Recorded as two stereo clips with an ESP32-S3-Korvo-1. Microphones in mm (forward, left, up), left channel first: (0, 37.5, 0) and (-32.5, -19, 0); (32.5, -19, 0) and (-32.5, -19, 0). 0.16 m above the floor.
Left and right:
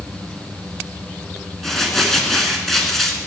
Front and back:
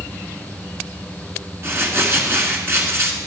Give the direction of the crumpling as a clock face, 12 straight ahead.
7 o'clock.